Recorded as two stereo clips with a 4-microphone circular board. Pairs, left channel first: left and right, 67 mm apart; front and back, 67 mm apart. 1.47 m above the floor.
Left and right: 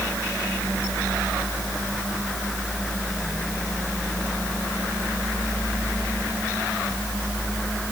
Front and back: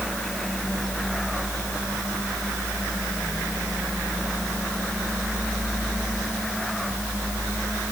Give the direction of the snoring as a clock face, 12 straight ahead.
No snoring in this recording.